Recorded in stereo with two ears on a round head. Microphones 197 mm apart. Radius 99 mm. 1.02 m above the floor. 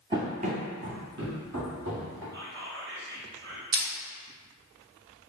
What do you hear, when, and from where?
0.1 s running footsteps: 20° right (ahead or behind), 1.0 m; by 2.2 s 65° right (ahead or behind), 2.5 m
2.3 s whispering: 50° right (ahead or behind), 1.2 m
3.7 s crushing: 60° right (ahead or behind), 0.7 m